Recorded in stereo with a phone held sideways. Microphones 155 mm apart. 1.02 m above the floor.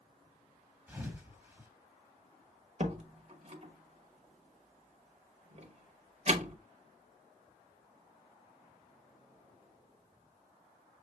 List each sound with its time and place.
0.9 s a thud: 10° right (ahead or behind), 1.0 m
2.8 s a door slam: 45° right (ahead or behind), 0.9 m